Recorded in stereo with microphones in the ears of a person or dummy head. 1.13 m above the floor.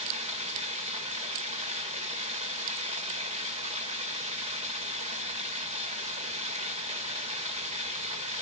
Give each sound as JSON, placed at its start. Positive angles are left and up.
{"t": 0.0, "sound": "running water", "side_deg": -35, "distance_m": 1.9}